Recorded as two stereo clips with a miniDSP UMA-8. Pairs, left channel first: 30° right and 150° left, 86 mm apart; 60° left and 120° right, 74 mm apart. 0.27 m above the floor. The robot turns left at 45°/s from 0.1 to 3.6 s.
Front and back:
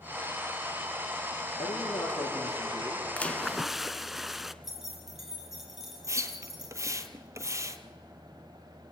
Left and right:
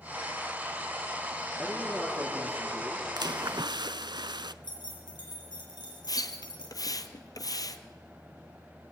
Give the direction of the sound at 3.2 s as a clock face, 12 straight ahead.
3 o'clock.